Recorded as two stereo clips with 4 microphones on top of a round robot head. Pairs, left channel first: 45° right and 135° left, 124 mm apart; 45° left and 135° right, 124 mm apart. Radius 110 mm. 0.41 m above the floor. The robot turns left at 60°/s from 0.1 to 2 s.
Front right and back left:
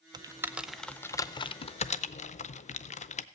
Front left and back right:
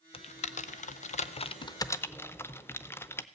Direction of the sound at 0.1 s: 85° left.